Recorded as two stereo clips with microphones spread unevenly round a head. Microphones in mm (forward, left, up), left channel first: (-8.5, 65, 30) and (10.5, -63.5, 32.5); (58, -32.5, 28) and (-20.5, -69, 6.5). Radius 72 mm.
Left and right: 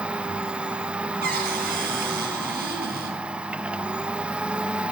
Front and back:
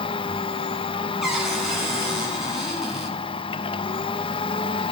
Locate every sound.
0.0 s a machine running: straight ahead, 1.0 m
1.2 s a cupboard door: 70° right, 8.5 m